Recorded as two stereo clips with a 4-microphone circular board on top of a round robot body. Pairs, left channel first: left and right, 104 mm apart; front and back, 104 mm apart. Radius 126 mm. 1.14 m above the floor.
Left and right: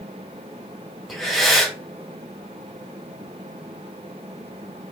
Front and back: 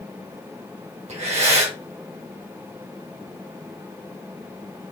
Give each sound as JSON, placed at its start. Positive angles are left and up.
{"t": 1.1, "sound": "breathing", "azimuth_deg": 180, "distance_m": 4.0}